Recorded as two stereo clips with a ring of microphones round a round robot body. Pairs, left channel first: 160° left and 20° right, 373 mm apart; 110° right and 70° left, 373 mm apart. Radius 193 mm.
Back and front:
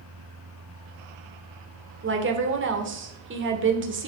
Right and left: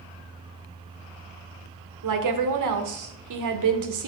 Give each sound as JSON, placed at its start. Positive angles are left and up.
{"t": 2.0, "sound": "a woman speaking", "azimuth_deg": 35, "distance_m": 1.8}